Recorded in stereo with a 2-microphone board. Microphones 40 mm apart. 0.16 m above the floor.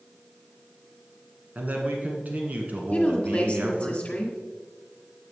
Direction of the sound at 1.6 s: 40° right (ahead or behind).